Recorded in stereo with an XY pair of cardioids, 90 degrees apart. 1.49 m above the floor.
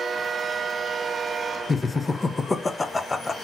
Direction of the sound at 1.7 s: 25° left.